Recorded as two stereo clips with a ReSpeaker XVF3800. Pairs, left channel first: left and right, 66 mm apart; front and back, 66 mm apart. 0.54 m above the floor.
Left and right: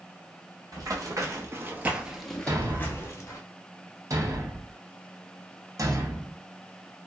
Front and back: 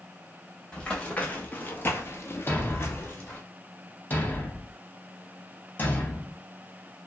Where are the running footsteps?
75° right, 1.1 m; by 3.4 s 55° left, 1.0 m.